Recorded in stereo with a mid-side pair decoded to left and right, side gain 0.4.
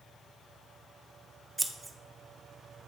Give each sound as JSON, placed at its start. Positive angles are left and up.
{"t": 1.6, "sound": "scissors", "azimuth_deg": -15, "distance_m": 0.8}